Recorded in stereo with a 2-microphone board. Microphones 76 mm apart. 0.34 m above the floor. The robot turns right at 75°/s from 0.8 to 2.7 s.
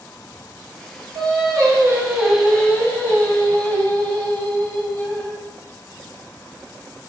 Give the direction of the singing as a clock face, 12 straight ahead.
3 o'clock.